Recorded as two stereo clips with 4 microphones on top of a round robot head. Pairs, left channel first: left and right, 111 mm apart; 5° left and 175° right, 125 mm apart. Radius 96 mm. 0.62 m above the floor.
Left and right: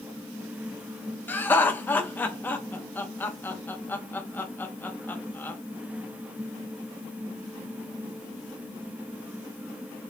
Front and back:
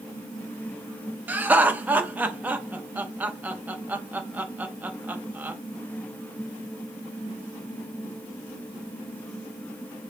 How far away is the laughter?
About 0.6 m.